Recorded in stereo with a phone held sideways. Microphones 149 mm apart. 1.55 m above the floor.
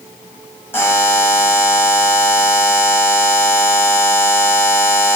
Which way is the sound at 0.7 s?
15° left (ahead or behind).